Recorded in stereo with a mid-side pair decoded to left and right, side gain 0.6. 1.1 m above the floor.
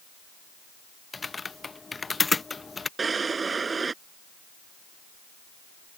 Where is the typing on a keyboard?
20° left.